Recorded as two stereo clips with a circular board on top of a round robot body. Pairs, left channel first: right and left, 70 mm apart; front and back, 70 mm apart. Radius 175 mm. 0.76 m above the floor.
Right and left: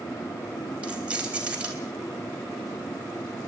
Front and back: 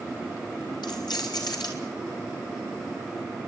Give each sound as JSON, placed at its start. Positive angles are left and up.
{"t": 0.8, "sound": "keys jangling", "azimuth_deg": 20, "distance_m": 4.0}